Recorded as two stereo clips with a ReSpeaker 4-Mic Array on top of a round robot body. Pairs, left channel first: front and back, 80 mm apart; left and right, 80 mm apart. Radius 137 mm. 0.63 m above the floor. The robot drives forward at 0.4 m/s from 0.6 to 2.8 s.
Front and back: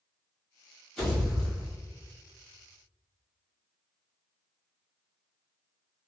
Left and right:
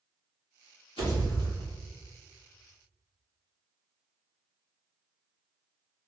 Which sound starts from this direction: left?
A pop, at 1.0 s.